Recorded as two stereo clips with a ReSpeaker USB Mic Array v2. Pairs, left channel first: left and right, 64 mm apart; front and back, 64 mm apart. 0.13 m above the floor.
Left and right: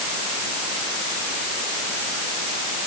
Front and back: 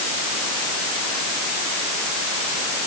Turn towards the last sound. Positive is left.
No sound to turn to.